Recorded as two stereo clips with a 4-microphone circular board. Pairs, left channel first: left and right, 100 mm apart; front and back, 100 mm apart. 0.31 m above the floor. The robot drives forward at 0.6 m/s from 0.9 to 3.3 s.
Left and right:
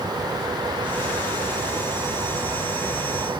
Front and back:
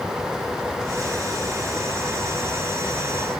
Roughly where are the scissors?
No scissors in this recording.